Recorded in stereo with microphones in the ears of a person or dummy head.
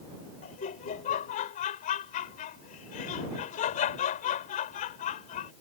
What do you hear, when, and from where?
0.4 s laughter: 35° left (ahead or behind)